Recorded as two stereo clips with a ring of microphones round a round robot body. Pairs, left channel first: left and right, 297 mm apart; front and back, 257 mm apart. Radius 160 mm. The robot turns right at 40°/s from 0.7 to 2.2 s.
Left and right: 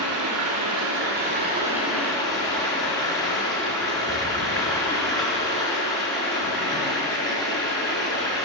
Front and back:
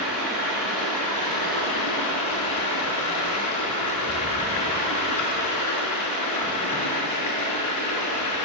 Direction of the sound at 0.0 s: 50° right.